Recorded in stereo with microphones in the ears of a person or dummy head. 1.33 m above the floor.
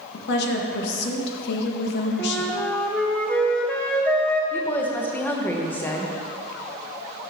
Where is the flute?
5° left (ahead or behind), 0.6 m.